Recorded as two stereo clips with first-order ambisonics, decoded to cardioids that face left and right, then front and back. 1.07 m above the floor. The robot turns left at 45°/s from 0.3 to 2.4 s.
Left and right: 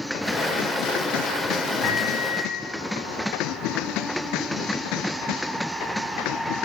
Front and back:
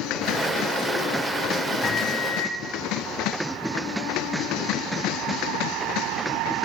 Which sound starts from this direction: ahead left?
A microwave, at 1.8 s.